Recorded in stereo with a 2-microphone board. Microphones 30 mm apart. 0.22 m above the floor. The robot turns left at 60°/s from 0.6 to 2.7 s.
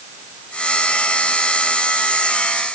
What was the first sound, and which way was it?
Only background noise.